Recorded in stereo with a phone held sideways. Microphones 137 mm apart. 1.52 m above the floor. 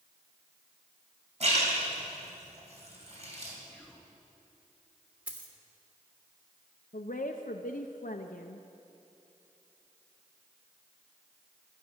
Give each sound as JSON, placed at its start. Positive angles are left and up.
{"t": 1.4, "sound": "a splash", "side_deg": -55, "distance_m": 3.0}
{"t": 3.7, "sound": "whispering", "side_deg": -5, "distance_m": 2.0}
{"t": 5.3, "sound": "a dropped coin", "side_deg": -10, "distance_m": 1.6}
{"t": 6.9, "sound": "a woman speaking", "side_deg": 85, "distance_m": 0.6}